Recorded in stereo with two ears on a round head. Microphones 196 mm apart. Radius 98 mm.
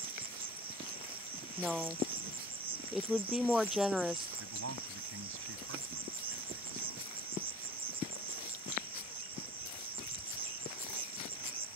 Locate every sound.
0.0 s an insect: 25° right (ahead or behind)
1.6 s a woman speaking: centre (ahead or behind)
4.4 s a man speaking: 65° right (ahead or behind)